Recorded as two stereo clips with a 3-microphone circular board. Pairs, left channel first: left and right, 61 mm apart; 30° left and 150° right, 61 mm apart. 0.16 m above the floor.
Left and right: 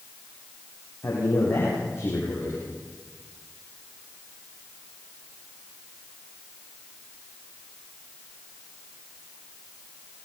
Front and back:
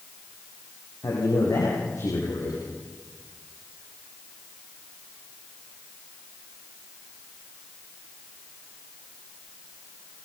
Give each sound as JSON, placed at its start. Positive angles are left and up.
{"t": 1.0, "sound": "a man speaking", "azimuth_deg": 45, "distance_m": 8.0}